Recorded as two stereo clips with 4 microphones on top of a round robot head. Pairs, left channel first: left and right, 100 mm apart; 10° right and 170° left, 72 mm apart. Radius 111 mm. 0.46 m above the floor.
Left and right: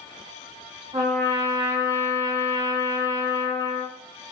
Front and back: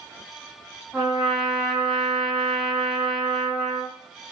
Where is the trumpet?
105° right, 2.0 m.